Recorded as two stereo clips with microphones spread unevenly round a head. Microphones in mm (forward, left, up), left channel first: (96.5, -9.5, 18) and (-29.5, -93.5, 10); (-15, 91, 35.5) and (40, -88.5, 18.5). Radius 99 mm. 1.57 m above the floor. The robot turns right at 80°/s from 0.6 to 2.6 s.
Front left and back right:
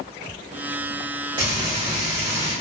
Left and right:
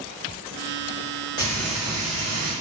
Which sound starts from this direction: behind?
Frying, at 1.4 s.